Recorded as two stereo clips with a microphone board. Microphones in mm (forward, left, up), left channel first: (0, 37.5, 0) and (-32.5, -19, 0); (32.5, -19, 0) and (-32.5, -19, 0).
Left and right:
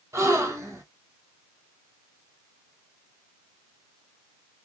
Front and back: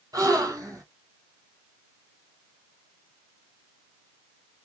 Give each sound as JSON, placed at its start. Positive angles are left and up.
{"t": 0.1, "sound": "a gasp", "azimuth_deg": -160, "distance_m": 1.5}